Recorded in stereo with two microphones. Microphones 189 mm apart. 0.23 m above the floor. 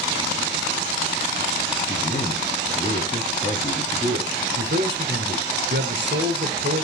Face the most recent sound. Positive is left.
turn(degrees=-60)  # may be behind; listen again after turning